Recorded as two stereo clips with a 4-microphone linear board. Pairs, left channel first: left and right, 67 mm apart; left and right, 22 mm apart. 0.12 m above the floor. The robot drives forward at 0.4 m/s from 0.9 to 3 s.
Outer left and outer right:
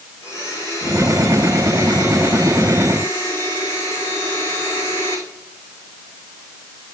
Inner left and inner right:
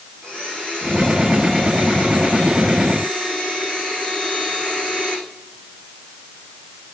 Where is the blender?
40° left (ahead or behind), 7 m; by 5.2 s 35° left (ahead or behind), 7.5 m.